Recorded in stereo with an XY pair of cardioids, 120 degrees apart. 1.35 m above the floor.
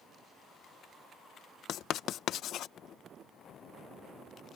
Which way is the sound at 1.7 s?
60° left.